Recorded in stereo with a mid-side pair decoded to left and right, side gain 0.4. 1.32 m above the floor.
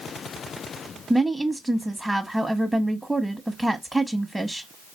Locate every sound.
1.1 s a woman speaking: 10° right, 0.7 m